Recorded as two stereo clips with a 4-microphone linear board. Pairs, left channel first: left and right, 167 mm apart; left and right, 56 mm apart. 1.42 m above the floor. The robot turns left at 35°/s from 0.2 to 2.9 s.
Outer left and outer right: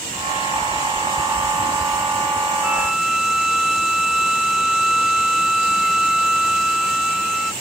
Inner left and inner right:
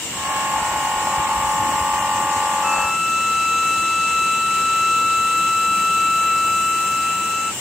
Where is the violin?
10° right (ahead or behind); by 7.5 s 5° right (ahead or behind).